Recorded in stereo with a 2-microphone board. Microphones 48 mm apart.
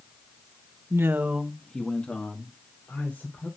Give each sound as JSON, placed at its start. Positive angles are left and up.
{"t": 0.9, "sound": "a man speaking", "side_deg": -70, "distance_m": 0.9}